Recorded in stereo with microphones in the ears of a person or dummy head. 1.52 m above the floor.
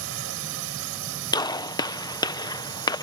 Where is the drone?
70° right (ahead or behind).